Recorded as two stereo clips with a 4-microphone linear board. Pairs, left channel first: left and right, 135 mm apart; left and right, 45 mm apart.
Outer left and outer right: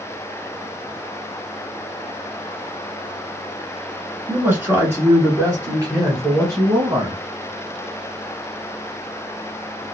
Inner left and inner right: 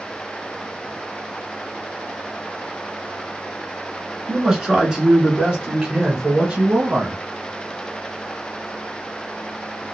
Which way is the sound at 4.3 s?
10° right (ahead or behind).